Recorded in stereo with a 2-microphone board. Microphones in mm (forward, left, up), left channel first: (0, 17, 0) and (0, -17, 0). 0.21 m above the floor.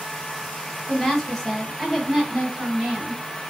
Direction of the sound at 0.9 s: 15° left (ahead or behind).